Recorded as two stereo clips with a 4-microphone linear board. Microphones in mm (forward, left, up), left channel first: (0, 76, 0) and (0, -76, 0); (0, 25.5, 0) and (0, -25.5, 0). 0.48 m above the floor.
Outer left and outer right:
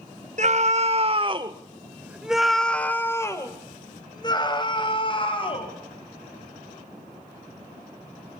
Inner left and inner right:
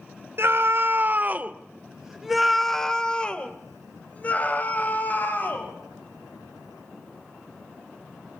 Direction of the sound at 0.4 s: 55° right (ahead or behind).